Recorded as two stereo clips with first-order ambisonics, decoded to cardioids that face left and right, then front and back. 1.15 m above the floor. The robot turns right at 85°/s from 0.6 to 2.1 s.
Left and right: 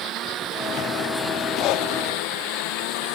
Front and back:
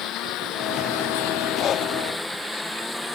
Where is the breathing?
50° left; by 1.9 s 75° left.